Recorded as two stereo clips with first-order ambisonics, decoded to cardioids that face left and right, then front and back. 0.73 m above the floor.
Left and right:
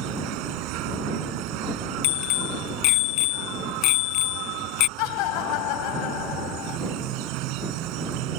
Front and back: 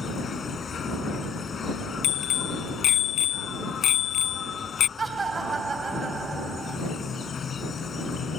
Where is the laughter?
105° left.